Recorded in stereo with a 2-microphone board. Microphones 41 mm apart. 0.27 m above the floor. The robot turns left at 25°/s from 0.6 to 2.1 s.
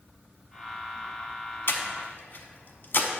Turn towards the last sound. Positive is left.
turn(degrees=55)  # may be behind; listen again after turning